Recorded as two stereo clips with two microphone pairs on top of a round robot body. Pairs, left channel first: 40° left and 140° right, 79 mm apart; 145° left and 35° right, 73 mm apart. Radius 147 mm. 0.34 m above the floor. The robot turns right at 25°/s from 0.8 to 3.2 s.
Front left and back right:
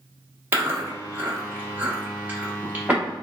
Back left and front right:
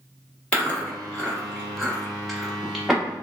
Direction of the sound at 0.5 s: 155° right.